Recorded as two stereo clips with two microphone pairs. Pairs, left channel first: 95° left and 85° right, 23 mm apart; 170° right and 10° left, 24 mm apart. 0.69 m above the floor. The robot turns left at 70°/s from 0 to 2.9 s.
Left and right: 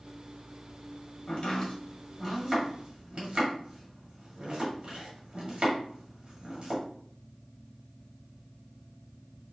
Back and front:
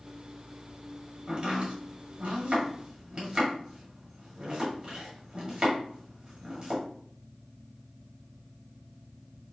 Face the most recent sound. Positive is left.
turn(degrees=-50)